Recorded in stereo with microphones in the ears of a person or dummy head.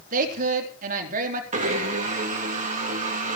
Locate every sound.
0.1 s a woman speaking: 50° right (ahead or behind), 3.5 m
1.5 s a blender: 40° right (ahead or behind), 2.5 m